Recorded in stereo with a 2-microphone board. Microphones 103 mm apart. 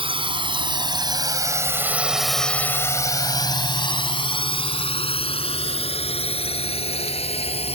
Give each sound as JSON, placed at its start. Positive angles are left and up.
{"t": 0.0, "sound": "a drone", "side_deg": -60}